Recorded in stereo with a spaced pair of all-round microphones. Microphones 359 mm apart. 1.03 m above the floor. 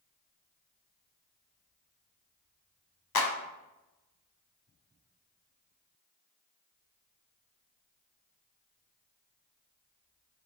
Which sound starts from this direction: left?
A clap, at 3.1 s.